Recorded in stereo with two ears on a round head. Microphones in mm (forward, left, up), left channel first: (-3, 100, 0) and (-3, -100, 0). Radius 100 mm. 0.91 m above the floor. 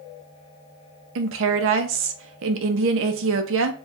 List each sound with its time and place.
1.1 s a woman speaking: 60° right (ahead or behind), 0.6 m